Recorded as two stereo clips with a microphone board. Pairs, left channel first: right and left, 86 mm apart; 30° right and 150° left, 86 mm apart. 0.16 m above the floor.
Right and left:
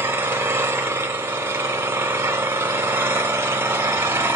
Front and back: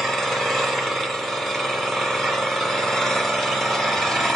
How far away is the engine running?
About 1.2 m.